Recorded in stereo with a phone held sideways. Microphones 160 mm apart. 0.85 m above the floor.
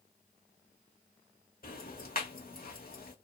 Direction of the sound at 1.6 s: 60° left (ahead or behind).